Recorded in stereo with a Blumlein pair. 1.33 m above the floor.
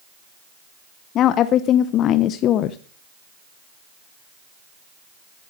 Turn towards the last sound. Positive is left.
turn(degrees=30)